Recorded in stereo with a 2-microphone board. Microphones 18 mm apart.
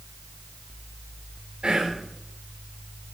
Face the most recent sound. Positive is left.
turn(degrees=-60)  # may be behind; listen again after turning